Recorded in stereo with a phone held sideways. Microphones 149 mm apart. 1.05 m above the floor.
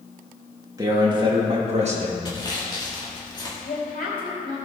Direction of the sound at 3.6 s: 85° left.